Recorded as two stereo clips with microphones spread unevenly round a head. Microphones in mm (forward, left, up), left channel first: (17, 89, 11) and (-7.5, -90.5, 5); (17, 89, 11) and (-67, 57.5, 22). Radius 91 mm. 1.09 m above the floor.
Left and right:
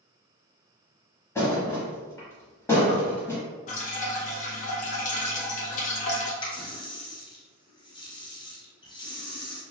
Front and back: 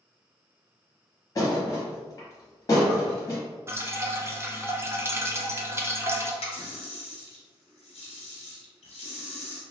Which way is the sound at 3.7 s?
135° left.